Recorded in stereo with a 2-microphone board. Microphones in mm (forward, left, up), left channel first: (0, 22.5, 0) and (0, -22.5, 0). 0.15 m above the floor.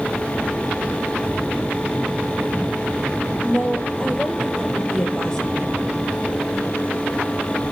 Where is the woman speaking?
10° left (ahead or behind), 4 m.